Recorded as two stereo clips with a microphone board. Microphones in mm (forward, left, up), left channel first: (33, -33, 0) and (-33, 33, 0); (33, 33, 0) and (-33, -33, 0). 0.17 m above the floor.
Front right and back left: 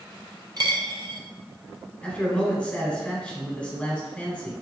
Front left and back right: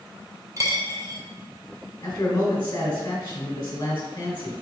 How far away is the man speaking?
About 1.1 m.